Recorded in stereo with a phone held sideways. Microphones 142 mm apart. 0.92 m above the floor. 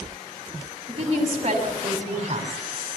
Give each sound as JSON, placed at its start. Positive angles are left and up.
{"t": 0.9, "sound": "a woman speaking", "side_deg": -45, "distance_m": 6.5}